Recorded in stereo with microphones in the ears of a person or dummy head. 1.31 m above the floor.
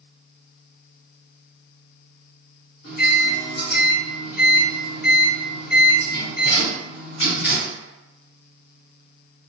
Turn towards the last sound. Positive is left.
turn(degrees=55)  # may be behind; listen again after turning